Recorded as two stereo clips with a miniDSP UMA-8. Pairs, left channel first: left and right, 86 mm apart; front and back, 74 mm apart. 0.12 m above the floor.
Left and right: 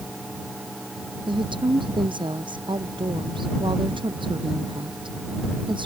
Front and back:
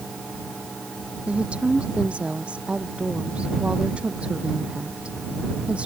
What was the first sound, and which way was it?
A woman speaking, 105° right.